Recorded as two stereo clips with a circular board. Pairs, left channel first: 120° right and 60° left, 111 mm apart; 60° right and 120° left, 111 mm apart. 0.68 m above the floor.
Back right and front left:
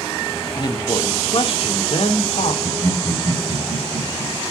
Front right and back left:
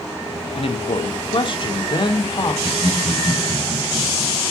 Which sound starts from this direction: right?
A man speaking, at 0.6 s.